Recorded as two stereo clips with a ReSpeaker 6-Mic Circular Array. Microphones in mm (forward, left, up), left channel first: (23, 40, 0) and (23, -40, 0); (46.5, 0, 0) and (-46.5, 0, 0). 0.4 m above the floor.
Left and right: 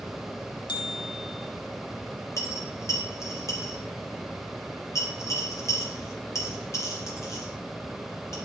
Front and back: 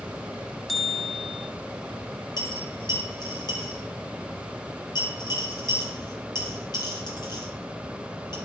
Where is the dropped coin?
40° left, 2.5 m.